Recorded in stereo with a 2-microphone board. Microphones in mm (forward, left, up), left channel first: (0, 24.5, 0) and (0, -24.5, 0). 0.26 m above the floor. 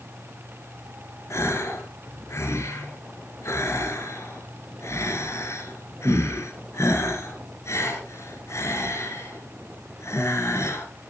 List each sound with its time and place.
1.3 s a gasp: 75° left (ahead or behind), 4 m